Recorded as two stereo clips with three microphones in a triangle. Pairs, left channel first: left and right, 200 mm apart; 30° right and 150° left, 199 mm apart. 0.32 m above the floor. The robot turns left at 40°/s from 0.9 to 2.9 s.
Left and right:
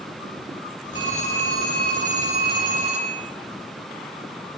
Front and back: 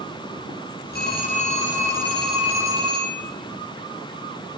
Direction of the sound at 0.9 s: 65° right.